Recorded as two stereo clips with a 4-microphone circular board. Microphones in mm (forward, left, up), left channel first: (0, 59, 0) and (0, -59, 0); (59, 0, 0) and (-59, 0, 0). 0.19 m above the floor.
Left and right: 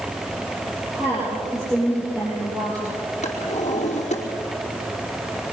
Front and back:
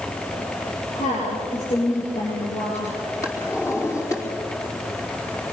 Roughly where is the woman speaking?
Ahead.